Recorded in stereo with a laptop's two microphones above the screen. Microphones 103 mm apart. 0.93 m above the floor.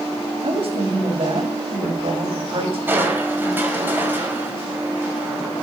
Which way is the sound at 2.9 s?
15° right (ahead or behind).